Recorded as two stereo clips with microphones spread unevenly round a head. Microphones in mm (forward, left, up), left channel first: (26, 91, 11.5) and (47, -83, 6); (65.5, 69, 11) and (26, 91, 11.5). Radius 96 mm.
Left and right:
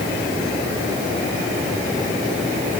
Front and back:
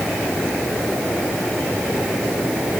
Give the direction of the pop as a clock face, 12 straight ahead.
No pop in this recording.